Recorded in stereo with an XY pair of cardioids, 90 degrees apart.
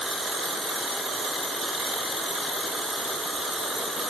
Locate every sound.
Only background noise.